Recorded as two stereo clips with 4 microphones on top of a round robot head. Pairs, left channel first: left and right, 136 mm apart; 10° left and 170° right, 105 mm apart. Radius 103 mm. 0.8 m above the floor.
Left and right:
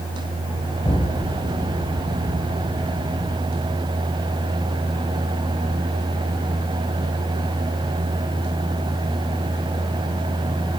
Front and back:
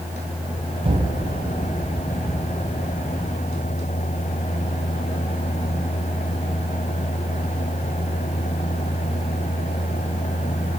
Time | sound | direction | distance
0.8 | an explosion | 160° left | 1.3 m